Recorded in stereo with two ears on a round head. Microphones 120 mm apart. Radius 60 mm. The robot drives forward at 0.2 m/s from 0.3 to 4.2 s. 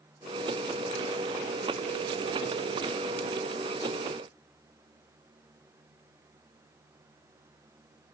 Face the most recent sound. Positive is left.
No sound to turn to.